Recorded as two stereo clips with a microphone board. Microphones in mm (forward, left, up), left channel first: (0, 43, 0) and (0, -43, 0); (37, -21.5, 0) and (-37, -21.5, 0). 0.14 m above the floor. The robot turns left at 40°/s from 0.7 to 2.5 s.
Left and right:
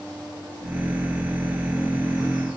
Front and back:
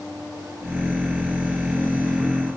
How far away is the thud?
I don't hear a thud.